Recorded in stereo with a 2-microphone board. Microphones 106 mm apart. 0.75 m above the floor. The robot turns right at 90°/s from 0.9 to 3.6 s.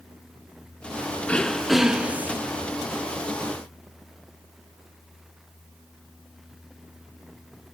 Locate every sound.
1.3 s throat clearing: 10° left (ahead or behind), 0.5 m; by 2.4 s 20° right (ahead or behind), 0.5 m